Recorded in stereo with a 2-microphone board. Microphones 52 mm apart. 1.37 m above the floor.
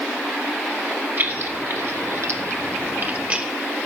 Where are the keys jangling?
45° right (ahead or behind), 1.8 m; by 3.5 s 20° right (ahead or behind), 1.1 m.